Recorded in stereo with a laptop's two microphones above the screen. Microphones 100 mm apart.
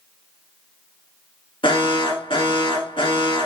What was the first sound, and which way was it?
An alarm, 55° left (ahead or behind).